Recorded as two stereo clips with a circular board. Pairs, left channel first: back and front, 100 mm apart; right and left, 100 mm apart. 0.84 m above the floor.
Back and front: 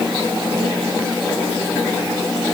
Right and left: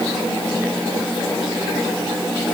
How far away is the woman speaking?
I don't hear a woman speaking.